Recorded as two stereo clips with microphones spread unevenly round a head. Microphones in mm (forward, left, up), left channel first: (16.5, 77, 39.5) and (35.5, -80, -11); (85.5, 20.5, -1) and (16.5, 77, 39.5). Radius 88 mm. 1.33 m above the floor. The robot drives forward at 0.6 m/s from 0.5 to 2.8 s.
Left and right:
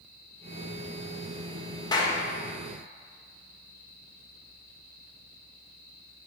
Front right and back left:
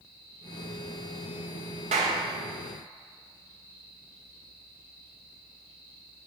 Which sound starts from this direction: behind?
A clap, at 1.9 s.